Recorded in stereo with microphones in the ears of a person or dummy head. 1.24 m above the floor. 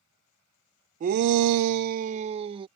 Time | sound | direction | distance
1.0 | a shout | 35° right (ahead or behind) | ?